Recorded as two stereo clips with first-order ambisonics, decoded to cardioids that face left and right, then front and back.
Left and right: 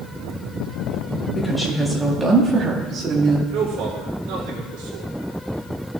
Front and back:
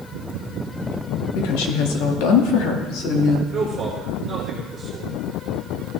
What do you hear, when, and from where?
1.4 s a woman speaking: 10° left, 1.6 m; by 3.4 s 40° right, 2 m
3.5 s a man speaking: 100° right, 2.5 m